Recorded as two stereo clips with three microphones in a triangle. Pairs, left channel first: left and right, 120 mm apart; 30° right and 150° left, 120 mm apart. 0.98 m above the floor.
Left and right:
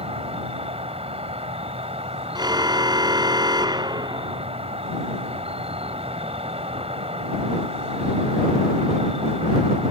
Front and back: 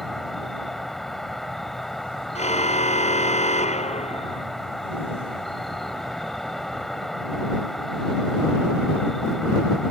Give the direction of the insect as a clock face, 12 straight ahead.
4 o'clock.